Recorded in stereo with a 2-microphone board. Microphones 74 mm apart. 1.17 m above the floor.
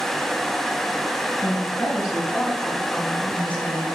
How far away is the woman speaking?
About 5.5 m.